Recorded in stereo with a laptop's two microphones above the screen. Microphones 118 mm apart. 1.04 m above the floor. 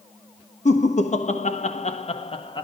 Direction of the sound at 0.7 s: 70° left (ahead or behind).